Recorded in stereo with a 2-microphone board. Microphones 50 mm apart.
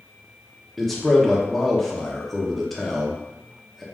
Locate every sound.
0.8 s a man speaking: centre (ahead or behind), 0.6 m